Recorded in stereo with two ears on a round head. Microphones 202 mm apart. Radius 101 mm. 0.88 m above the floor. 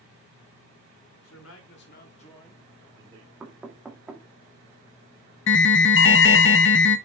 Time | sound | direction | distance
1.2 | a man speaking | 70° left (ahead or behind) | 2.5 m
3.4 | knocking | 5° right (ahead or behind) | 1.7 m
5.5 | an alarm | 55° left (ahead or behind) | 0.8 m